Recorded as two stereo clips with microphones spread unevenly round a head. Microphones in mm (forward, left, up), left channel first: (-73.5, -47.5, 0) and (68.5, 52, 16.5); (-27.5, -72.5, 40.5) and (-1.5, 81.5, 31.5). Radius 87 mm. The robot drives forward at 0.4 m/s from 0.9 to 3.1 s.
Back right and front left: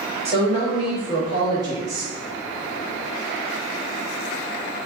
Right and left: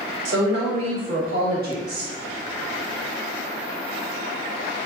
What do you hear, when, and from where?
0.2 s a woman speaking: 95° left, 1.5 m; by 2.1 s 110° left, 1.6 m